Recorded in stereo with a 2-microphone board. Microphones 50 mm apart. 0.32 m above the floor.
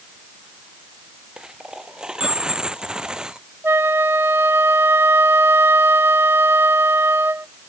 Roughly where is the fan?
I don't hear a fan.